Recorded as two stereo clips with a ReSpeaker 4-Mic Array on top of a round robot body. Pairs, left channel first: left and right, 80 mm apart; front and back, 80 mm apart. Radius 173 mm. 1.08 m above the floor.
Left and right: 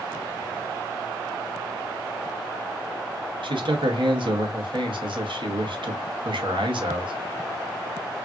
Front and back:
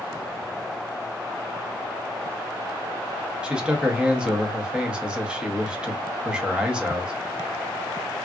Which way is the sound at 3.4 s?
100° right.